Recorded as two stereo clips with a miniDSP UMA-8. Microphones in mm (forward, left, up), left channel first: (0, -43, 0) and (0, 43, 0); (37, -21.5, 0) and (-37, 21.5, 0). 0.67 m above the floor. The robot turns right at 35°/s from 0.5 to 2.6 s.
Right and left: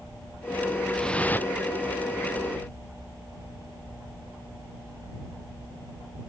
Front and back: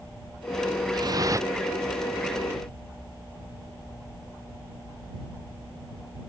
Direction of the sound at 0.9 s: 175° right.